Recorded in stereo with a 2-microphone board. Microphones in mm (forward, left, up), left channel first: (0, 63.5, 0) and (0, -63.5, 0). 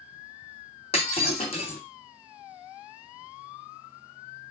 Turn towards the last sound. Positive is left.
turn(degrees=50)  # may be behind; listen again after turning